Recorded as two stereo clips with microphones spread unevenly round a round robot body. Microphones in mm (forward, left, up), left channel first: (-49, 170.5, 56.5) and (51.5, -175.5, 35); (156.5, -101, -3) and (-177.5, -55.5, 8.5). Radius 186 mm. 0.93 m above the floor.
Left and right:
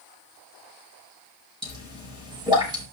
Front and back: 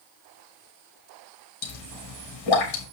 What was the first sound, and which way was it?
A pop, 5° left.